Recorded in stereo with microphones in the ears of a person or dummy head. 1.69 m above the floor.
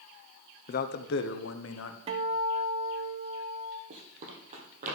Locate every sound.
0.7 s a man speaking: 50° left (ahead or behind), 0.8 m; by 2.0 s 80° left, 1.2 m
2.1 s a guitar: 25° right (ahead or behind), 0.6 m
3.9 s running footsteps: 45° right (ahead or behind), 2.5 m; by 5.0 s 40° right (ahead or behind), 3 m